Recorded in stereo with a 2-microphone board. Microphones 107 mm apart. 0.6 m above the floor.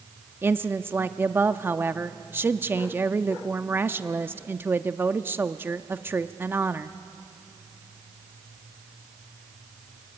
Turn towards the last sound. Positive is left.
turn(degrees=-20)  # may be behind; listen again after turning